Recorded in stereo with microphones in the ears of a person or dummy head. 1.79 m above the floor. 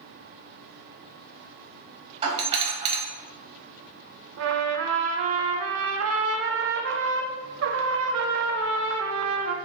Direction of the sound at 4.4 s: 80° right.